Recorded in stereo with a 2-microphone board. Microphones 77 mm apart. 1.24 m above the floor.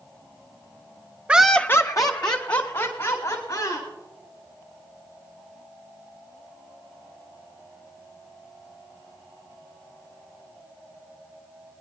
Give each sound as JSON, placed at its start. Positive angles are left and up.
{"t": 1.3, "sound": "laughter", "side_deg": -15, "distance_m": 0.7}